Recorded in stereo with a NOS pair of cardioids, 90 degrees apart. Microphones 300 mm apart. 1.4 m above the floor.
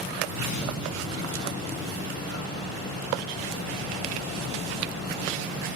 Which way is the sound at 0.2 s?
70° left.